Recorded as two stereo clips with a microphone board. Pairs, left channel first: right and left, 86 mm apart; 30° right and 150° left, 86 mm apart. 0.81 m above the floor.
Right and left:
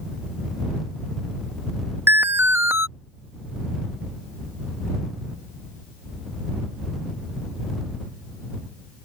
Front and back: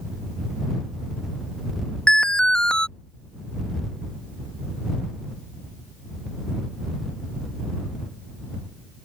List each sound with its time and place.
2.1 s an alarm: 45° left